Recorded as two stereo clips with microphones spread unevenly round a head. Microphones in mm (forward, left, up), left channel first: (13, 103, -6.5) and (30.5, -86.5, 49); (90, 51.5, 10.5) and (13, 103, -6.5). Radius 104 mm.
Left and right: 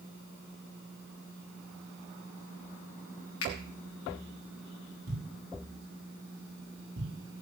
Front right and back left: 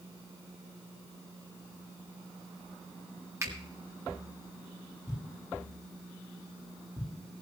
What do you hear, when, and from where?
3.4 s a finger snap: 90° left, 3 m
5.1 s a thud: 130° right, 9 m